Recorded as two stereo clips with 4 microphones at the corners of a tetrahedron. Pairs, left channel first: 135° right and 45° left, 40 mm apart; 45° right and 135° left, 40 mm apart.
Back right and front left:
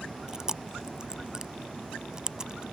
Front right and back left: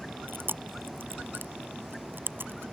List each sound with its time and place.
0.3 s chewing: 115° left